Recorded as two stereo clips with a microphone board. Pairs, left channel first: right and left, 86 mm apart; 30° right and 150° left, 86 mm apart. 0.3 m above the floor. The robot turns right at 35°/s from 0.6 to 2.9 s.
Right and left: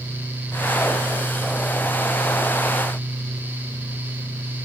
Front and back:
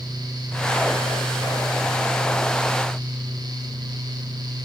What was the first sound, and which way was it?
Only background noise.